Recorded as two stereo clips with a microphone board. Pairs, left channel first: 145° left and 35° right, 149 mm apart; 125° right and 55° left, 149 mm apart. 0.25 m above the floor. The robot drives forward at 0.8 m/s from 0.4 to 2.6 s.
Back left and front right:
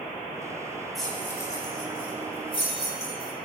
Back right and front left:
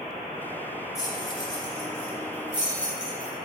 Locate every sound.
0.9 s keys jangling: 120° right, 0.7 m; by 3.3 s 170° right, 1.6 m